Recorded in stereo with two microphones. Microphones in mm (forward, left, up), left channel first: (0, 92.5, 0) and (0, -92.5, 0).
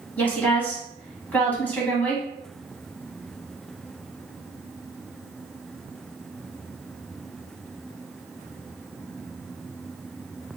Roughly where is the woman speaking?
Centre.